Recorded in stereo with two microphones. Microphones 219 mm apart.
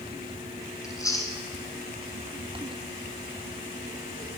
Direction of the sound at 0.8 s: 15° left (ahead or behind).